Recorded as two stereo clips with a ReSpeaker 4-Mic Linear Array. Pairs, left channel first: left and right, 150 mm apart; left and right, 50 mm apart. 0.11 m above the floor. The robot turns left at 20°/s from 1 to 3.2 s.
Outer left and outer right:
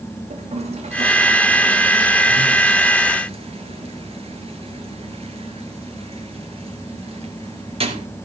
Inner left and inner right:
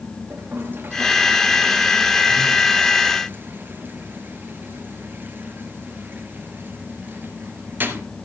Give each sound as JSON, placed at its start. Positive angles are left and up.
{"t": 0.3, "sound": "a toilet flushing", "side_deg": -45, "distance_m": 2.5}